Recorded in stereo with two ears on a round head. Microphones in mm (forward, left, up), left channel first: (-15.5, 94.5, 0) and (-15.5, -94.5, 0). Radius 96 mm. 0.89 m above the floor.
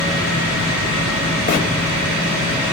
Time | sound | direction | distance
1.5 | a bird | 45° left (ahead or behind) | 3 m